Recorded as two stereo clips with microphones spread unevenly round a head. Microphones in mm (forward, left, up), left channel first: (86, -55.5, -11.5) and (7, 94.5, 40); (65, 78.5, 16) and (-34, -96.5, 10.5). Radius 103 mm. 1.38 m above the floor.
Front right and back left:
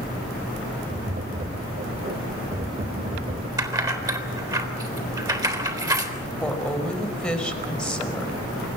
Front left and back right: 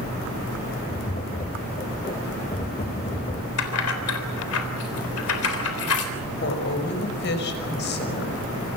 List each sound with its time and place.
0.9 s tapping: 115° left, 1.6 m
3.6 s keys jangling: 50° left, 3.5 m
6.4 s a woman speaking: 25° left, 5.5 m